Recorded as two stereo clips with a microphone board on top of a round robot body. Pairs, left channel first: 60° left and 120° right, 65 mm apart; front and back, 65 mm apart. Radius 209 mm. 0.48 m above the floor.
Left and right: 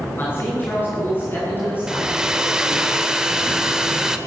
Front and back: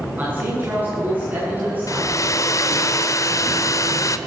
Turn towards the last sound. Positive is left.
turn(degrees=-40)